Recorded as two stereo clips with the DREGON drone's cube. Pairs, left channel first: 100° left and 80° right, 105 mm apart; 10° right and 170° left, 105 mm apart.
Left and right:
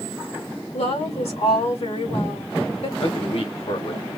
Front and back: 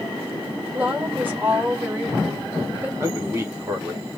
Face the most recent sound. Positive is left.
turn(degrees=110)